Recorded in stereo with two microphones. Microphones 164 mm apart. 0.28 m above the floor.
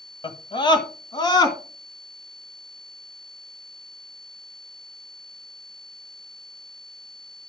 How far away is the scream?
About 1.3 m.